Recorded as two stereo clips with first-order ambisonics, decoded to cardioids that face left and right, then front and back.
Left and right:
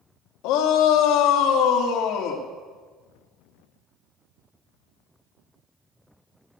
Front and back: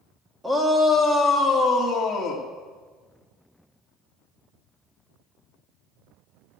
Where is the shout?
95° left, 1.7 m; by 2.5 s 60° left, 2.5 m.